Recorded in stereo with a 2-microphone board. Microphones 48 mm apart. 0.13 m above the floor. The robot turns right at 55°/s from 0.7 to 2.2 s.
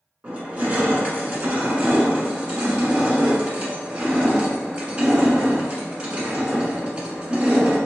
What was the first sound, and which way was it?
Crushing, 125° right.